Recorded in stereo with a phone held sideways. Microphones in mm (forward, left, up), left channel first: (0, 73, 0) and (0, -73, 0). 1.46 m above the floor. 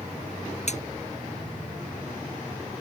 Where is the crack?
50° left (ahead or behind).